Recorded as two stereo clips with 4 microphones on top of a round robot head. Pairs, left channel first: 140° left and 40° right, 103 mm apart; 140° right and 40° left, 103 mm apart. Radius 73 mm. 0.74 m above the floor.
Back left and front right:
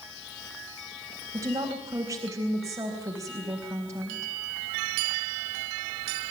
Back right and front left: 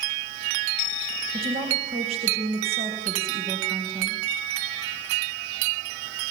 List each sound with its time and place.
1.3 s a woman speaking: 20° left, 4 m